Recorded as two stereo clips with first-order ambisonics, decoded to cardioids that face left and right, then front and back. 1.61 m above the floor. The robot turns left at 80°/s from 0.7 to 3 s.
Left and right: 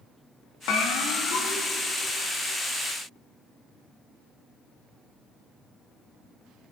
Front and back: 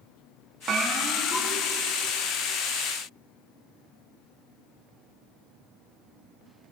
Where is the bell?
120° left, 2.0 m; by 1.6 s 45° left, 2.0 m.